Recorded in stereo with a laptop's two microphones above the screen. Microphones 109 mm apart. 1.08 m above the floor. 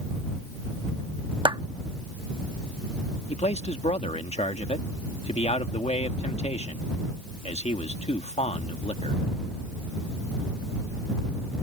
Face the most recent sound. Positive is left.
turn(degrees=75)  # may be behind; listen again after turning